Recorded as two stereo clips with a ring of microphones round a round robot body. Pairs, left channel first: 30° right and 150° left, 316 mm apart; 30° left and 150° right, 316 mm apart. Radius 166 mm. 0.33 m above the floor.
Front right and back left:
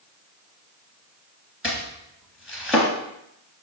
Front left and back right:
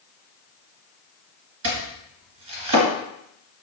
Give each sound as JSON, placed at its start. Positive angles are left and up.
{"t": 1.6, "sound": "chopping", "azimuth_deg": -120, "distance_m": 2.0}